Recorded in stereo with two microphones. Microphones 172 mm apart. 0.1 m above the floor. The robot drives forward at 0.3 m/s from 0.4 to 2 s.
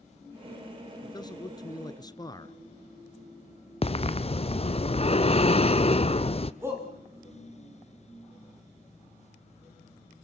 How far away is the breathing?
About 0.8 m.